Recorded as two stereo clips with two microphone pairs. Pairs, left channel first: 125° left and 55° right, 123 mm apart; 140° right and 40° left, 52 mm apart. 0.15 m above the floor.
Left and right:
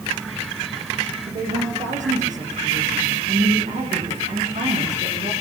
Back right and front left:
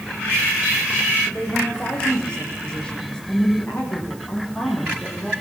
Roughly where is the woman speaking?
Ahead right.